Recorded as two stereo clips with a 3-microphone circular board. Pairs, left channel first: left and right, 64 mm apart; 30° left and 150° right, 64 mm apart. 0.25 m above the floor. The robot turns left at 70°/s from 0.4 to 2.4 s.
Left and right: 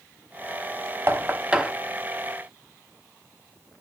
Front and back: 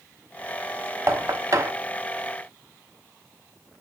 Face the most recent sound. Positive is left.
turn(degrees=140)